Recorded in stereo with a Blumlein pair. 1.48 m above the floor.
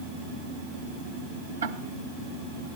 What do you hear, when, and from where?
1.6 s ticking: 70° right, 1.2 m